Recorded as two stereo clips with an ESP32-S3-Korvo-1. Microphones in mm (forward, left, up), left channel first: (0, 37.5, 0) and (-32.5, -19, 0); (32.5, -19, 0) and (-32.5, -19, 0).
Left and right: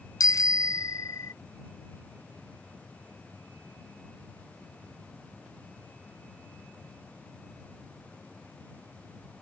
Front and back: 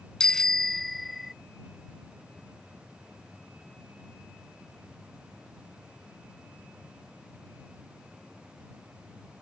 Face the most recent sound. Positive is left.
turn(degrees=95)